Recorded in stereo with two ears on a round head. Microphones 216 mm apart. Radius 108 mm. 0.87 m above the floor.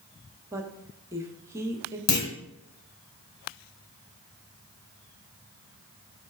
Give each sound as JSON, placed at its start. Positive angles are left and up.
{"t": 0.5, "sound": "a woman speaking", "side_deg": -10, "distance_m": 0.9}
{"t": 2.1, "sound": "a clunk", "side_deg": 70, "distance_m": 2.5}